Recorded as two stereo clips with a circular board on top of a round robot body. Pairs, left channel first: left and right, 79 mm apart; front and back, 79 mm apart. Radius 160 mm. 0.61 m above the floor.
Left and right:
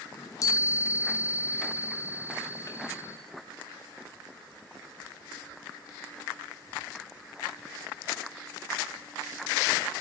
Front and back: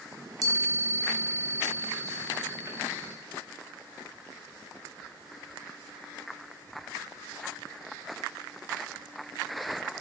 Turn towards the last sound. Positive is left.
turn(degrees=135)